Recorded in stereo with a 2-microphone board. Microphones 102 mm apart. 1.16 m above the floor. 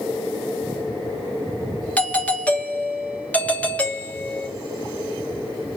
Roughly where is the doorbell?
Centre.